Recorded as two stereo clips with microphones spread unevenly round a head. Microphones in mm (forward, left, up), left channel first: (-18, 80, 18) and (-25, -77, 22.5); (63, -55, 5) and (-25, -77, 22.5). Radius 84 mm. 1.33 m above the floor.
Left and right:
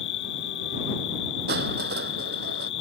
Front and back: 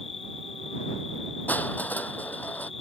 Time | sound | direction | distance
0.0 | an insect | 65° left | ?
1.5 | crushing | 60° right | ?